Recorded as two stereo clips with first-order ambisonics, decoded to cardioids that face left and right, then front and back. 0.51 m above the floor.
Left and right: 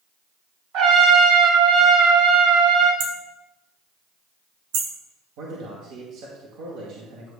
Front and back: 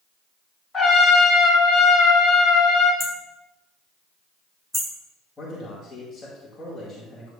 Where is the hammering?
95° right, 1.4 m.